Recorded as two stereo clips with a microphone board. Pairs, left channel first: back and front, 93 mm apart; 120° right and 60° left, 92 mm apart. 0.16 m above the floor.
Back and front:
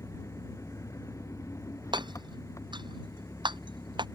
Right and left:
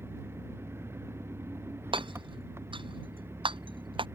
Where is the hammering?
35° left.